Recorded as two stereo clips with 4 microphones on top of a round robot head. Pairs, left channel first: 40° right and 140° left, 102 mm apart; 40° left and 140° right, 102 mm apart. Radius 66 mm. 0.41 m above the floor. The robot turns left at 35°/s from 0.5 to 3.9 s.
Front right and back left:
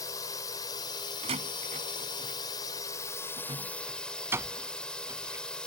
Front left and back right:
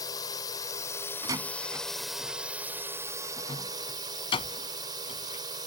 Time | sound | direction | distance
0.0 | a drone | 5° left | ?
1.2 | a door slam | 170° left | ?